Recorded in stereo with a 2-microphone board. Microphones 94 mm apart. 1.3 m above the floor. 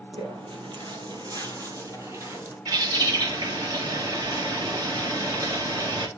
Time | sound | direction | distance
0.1 | footsteps | 60° right (ahead or behind) | 2.5 m
2.6 | a bird | 40° right (ahead or behind) | 2.5 m